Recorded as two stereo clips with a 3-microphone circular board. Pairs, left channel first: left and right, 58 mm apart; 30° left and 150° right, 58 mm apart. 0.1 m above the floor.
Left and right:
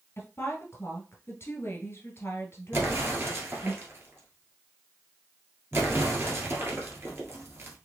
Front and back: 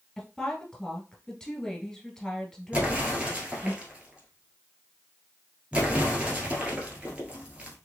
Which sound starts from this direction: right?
An explosion, at 2.7 s.